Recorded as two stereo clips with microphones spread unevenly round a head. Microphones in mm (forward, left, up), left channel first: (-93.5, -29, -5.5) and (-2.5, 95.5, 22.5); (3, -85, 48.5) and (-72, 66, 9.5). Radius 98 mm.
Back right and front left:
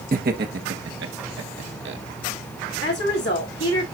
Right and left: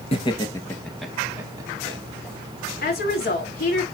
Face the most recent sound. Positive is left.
turn(degrees=-95)